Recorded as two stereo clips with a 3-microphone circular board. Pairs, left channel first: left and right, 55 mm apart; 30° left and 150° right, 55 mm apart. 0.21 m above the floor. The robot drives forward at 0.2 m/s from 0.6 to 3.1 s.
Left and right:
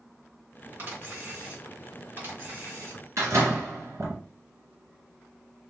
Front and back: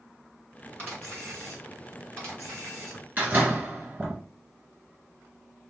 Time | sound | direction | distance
0.8 | a camera shutter | 120° right | 2.5 m
3.2 | a door slam | 100° right | 1.7 m